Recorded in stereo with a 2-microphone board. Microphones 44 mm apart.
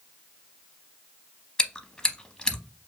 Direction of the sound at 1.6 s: 20° left (ahead or behind).